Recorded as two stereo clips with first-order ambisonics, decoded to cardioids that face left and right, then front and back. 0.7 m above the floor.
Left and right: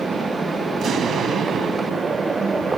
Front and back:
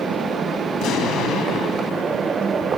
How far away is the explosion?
About 0.8 m.